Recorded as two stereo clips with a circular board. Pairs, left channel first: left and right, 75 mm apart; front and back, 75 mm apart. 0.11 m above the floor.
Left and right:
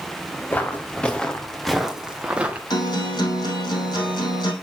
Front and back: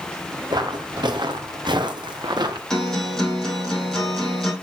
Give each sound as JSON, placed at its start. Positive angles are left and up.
{"t": 0.5, "sound": "footsteps", "azimuth_deg": 160, "distance_m": 1.9}
{"t": 2.7, "sound": "a guitar", "azimuth_deg": 80, "distance_m": 4.0}